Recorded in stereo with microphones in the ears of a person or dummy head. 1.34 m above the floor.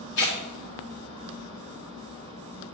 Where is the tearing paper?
65° left (ahead or behind), 1.7 m.